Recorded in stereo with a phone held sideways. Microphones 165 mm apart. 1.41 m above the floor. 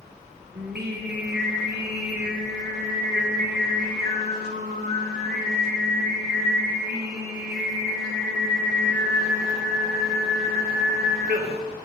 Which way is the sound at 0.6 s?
80° right.